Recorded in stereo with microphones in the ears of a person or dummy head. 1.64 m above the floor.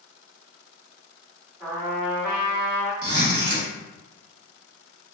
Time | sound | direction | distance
1.6 | a trumpet | 15° right (ahead or behind) | 1.8 m
3.0 | a zipper | 60° right (ahead or behind) | 1.4 m